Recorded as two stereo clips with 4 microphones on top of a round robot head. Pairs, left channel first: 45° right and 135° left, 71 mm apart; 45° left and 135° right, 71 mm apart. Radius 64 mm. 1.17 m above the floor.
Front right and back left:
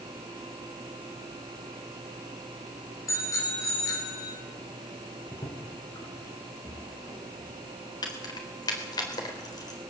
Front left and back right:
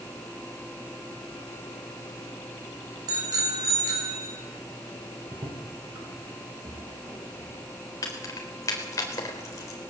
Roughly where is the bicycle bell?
Right.